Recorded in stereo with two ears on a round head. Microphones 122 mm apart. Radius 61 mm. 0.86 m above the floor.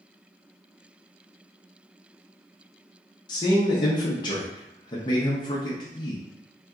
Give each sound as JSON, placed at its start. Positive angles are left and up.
{"t": 3.3, "sound": "a man speaking", "side_deg": 30, "distance_m": 0.7}